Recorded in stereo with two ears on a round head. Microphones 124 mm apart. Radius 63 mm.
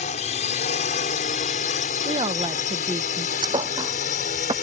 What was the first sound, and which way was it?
A drone, 50° left (ahead or behind).